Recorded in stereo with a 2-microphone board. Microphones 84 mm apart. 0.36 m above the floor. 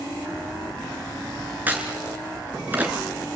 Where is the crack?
20° right (ahead or behind), 3.5 m.